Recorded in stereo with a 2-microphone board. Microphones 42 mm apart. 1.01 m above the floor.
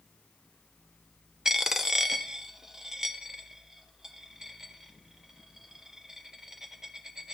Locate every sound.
1.4 s a dropped coin: 10° right (ahead or behind), 0.5 m